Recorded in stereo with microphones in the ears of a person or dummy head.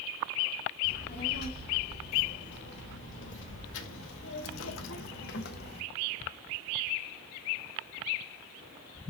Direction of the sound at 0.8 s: 60° left (ahead or behind).